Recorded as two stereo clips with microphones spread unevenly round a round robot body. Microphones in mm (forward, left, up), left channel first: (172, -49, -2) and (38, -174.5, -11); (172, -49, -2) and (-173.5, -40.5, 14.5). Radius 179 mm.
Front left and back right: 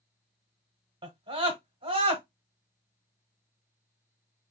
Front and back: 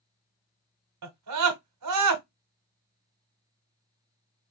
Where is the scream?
170° left, 1.1 m.